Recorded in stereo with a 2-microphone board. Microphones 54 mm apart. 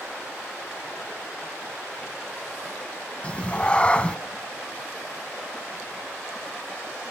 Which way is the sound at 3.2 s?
25° left (ahead or behind).